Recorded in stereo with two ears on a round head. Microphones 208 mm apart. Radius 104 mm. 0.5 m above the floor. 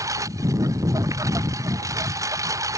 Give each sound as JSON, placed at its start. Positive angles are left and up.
{"t": 0.0, "sound": "a lawn mower", "side_deg": -15}